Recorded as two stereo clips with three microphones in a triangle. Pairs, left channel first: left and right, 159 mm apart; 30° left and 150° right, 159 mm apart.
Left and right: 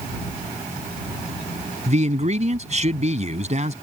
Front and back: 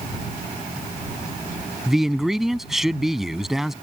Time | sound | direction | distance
1.9 | a man speaking | 60° right | ?